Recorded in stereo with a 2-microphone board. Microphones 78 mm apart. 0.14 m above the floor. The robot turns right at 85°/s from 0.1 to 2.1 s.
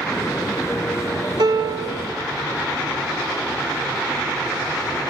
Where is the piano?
95° right, 0.6 m; by 2.1 s 35° right, 0.6 m.